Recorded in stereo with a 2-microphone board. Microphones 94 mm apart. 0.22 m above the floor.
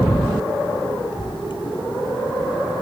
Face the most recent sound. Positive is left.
turn(degrees=60)  # may be behind; listen again after turning